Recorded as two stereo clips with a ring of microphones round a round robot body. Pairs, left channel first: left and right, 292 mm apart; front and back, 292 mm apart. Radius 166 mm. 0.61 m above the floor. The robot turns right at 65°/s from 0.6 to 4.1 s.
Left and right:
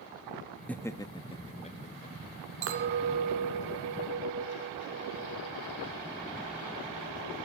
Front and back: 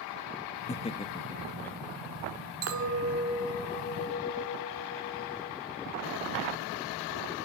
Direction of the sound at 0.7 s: 10° left.